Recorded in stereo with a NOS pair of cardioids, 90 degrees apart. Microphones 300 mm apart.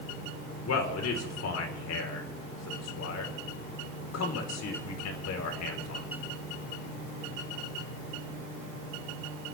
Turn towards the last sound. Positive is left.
turn(degrees=60)